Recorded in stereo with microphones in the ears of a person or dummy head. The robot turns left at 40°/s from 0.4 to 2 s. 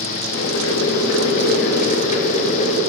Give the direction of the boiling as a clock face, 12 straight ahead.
9 o'clock.